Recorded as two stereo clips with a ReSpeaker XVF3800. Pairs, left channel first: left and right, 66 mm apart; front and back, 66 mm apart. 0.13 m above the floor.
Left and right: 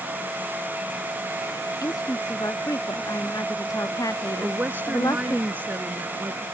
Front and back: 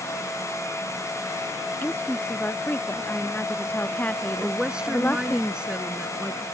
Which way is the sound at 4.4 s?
115° right.